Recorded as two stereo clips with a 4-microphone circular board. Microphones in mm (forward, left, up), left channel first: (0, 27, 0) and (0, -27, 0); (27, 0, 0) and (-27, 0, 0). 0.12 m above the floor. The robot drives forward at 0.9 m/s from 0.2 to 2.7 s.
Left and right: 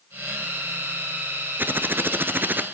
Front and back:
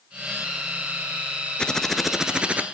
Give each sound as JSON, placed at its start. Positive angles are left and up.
{"t": 1.6, "sound": "typing on a keyboard", "azimuth_deg": -65, "distance_m": 1.2}